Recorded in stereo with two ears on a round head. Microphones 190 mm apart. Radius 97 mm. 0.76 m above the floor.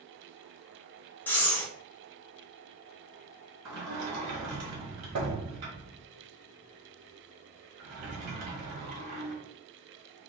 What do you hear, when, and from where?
1.3 s breathing: 10° left (ahead or behind), 0.8 m
3.6 s a sliding door: 80° right, 1.5 m